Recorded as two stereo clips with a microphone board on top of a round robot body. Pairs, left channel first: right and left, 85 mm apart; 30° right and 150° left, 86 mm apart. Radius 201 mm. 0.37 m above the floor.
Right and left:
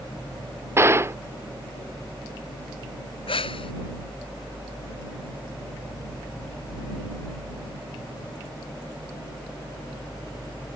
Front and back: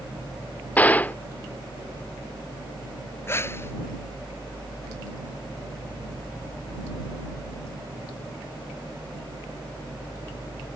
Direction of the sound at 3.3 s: 95° right.